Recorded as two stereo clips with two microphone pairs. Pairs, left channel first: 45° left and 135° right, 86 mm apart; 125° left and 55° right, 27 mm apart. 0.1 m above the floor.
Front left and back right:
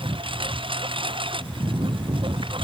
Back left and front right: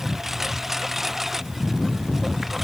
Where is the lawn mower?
135° right; by 2.6 s 140° right.